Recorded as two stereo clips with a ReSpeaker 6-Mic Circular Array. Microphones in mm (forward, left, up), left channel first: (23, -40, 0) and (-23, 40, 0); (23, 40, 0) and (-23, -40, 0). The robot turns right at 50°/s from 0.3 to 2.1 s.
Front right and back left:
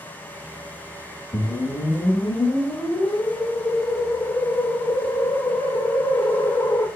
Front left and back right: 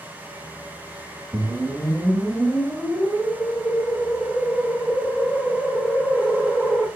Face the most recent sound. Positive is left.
turn(degrees=-30)